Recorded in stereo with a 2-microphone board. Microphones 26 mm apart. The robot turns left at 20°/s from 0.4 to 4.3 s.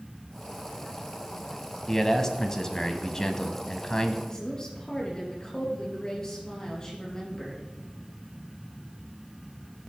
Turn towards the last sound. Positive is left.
turn(degrees=25)  # may be behind; listen again after turning